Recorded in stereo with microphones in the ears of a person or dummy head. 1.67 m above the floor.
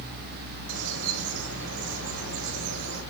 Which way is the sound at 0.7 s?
85° right.